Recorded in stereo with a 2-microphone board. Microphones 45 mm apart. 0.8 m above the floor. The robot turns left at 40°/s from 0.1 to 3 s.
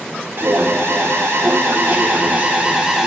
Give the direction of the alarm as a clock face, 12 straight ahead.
2 o'clock.